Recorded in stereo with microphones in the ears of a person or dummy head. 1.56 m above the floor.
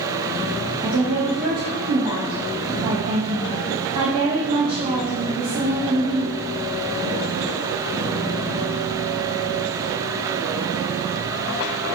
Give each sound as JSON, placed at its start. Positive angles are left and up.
{"t": 0.8, "sound": "a woman speaking", "side_deg": -30, "distance_m": 0.8}